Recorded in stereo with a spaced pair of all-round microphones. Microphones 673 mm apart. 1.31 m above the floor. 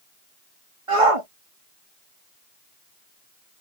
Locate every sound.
0.9 s a shout: 55° right (ahead or behind)